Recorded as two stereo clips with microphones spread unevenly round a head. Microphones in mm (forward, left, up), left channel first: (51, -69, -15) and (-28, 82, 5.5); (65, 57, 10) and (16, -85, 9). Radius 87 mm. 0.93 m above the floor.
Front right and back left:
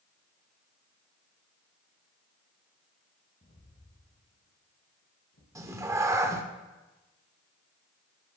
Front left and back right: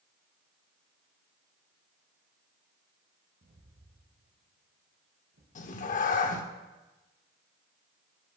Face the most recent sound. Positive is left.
turn(degrees=55)